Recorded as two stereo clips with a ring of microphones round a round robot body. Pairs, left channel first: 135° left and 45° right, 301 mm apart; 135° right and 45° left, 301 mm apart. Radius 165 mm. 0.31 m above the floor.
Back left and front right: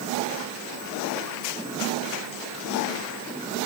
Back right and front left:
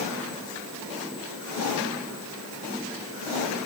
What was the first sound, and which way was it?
Only background noise.